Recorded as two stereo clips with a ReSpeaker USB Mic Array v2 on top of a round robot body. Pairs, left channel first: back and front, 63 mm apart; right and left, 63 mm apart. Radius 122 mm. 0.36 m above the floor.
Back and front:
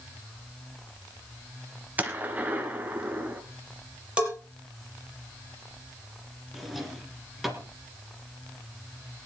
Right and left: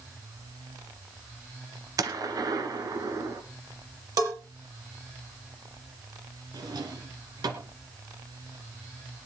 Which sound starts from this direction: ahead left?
A gunshot, at 2.0 s.